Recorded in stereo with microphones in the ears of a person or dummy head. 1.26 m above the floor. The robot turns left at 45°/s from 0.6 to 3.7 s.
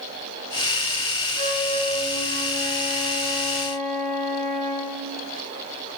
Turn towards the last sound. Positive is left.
turn(degrees=-140)